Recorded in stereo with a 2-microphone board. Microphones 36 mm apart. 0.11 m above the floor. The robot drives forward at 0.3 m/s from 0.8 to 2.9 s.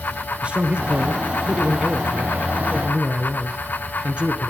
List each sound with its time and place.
0.4 s a man speaking: 35° right (ahead or behind), 2.0 m; by 4.5 s 30° right (ahead or behind), 2 m